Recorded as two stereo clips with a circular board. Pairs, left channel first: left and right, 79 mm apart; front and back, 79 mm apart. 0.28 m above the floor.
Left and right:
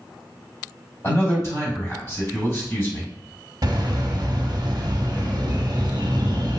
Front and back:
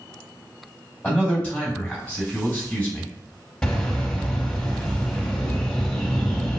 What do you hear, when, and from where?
1.0 s a man speaking: 65° left, 2.0 m
3.6 s a bird: 75° right, 0.6 m